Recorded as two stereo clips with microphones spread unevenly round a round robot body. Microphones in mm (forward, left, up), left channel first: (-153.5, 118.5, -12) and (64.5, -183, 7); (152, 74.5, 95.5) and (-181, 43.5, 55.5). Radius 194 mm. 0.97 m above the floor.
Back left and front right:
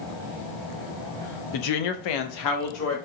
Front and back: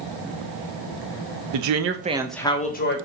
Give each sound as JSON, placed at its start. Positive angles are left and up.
{"t": 1.5, "sound": "a woman speaking", "azimuth_deg": 160, "distance_m": 0.8}